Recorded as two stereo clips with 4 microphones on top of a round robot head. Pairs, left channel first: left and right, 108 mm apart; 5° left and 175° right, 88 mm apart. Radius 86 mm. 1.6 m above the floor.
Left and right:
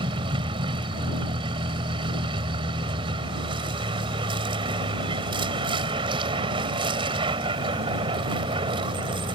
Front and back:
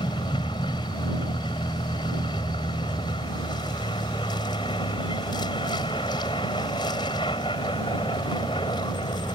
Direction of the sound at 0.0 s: 55° right.